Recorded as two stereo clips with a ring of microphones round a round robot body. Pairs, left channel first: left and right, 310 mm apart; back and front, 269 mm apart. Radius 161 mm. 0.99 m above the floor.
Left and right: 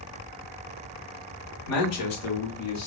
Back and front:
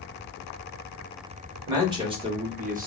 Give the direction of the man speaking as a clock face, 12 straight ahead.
9 o'clock.